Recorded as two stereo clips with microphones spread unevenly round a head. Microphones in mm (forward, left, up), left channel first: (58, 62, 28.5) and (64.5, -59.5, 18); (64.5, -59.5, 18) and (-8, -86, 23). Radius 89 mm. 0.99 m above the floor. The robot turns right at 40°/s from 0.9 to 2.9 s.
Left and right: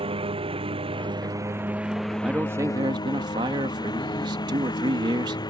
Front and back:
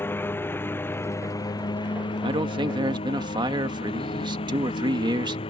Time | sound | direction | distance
0.0 | a lawn mower | 40° right | ?
2.2 | a man speaking | 170° right | ?